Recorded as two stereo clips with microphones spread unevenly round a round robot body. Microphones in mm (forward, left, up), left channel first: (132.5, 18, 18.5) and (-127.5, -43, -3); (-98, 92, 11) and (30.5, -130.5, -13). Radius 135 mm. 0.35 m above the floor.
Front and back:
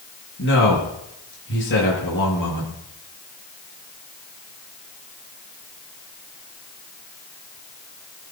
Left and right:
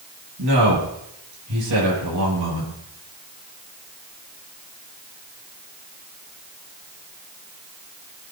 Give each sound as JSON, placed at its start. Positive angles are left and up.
{"t": 0.4, "sound": "a man speaking", "azimuth_deg": -35, "distance_m": 8.5}